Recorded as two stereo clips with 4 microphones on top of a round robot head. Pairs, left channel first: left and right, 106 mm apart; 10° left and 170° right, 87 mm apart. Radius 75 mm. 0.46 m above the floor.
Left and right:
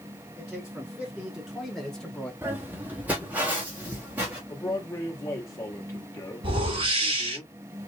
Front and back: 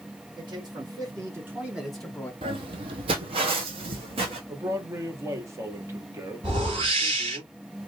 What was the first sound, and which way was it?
A man speaking, 165° right.